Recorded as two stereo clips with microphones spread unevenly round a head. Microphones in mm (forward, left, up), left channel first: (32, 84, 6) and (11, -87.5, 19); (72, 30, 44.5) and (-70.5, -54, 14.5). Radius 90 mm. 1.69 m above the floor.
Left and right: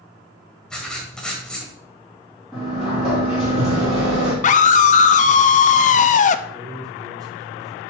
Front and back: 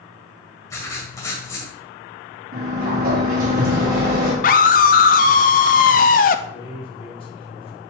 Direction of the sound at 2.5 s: 175° left.